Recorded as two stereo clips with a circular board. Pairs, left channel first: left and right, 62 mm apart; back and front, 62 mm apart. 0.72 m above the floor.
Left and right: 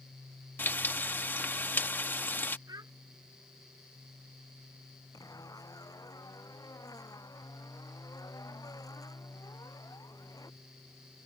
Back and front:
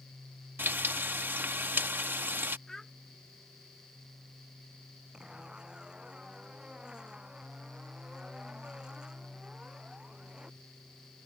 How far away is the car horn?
I don't hear a car horn.